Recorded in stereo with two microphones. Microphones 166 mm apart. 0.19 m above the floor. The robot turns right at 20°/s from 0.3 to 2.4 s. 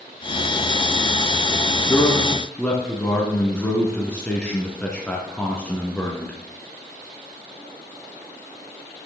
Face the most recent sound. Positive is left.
turn(degrees=5)  # may be behind; listen again after turning